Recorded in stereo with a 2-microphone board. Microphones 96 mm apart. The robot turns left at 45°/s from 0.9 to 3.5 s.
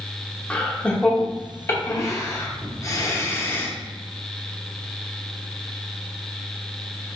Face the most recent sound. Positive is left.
turn(degrees=25)  # may be behind; listen again after turning